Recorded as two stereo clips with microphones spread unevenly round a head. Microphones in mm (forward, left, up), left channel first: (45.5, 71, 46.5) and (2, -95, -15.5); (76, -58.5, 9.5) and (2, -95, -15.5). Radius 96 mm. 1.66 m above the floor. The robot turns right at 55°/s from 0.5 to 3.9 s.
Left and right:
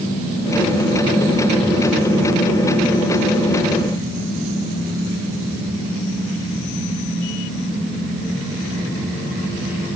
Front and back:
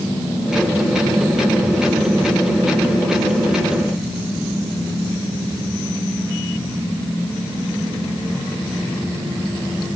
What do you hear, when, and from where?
Only background noise.